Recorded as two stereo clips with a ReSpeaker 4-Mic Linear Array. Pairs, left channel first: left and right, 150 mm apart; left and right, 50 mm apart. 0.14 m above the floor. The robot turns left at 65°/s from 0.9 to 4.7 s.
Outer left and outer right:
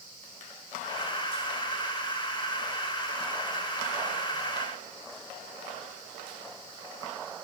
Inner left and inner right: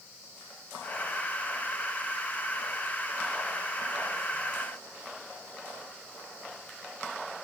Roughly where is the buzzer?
No buzzer in this recording.